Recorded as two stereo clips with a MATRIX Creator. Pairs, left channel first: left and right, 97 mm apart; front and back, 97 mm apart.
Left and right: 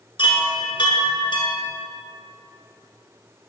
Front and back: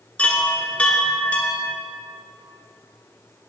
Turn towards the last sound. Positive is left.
turn(degrees=75)